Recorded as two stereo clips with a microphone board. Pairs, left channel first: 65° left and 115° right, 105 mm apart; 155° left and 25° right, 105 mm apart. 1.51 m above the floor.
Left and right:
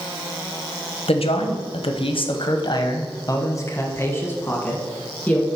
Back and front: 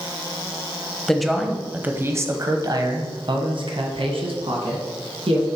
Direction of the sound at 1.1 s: 75° left.